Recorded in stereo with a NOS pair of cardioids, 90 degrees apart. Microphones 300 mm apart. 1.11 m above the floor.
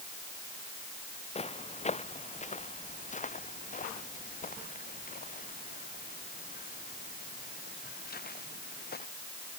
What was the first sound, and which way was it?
Footsteps, 20° left.